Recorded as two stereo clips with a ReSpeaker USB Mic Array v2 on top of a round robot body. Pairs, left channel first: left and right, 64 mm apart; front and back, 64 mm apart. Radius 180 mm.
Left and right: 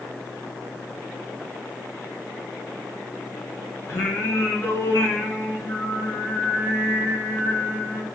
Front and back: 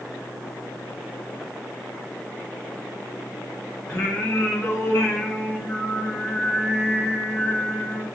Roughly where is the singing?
Ahead left.